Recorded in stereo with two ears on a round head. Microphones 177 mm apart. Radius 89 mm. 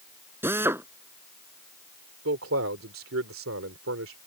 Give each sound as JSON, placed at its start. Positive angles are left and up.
{"t": 0.4, "sound": "a drill", "side_deg": -10}
{"t": 2.2, "sound": "a man speaking", "side_deg": -75}